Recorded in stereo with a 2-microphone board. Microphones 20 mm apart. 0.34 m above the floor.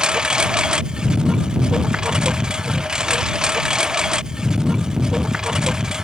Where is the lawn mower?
50° right (ahead or behind); by 6.0 s 35° right (ahead or behind).